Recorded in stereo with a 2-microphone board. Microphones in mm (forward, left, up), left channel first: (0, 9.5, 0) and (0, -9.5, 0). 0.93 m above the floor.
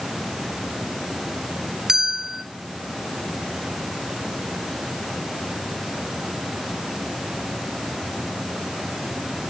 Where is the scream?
No scream in this recording.